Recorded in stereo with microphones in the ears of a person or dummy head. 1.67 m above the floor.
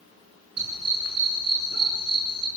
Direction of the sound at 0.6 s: 45° right (ahead or behind).